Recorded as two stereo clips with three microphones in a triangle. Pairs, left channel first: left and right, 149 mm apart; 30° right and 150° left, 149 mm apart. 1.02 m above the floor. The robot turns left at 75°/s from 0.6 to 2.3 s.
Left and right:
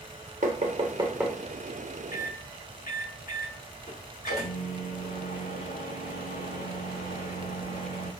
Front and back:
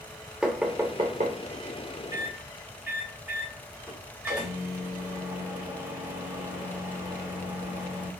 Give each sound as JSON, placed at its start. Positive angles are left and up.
{"t": 0.4, "sound": "knocking", "azimuth_deg": -125, "distance_m": 2.0}
{"t": 2.1, "sound": "a microwave", "azimuth_deg": 85, "distance_m": 4.5}